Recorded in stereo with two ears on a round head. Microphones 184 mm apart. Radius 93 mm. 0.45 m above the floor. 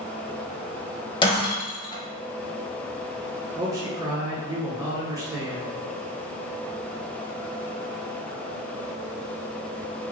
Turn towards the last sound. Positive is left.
turn(degrees=-15)  # may be behind; listen again after turning